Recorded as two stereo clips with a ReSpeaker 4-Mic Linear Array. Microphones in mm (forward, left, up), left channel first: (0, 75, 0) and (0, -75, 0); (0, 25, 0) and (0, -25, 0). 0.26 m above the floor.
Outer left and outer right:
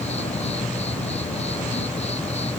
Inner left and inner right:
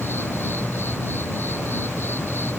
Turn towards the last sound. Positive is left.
turn(degrees=45)  # may be behind; listen again after turning